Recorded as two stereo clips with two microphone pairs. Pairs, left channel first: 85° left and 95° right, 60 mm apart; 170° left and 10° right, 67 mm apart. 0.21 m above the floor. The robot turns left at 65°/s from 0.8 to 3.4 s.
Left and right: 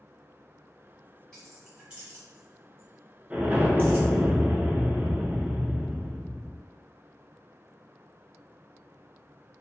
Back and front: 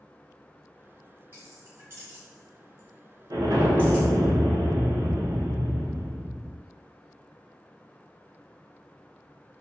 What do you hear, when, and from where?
1.3 s keys jangling: 10° left, 1.2 m; by 4.1 s 125° right, 1.2 m
3.3 s an explosion: 25° right, 0.7 m; by 6.6 s 30° right, 0.7 m